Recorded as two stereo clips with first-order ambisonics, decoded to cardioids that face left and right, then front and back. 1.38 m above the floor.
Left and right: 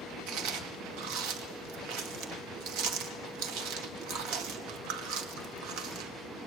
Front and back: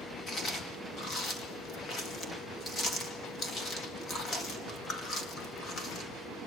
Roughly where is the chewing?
Ahead right.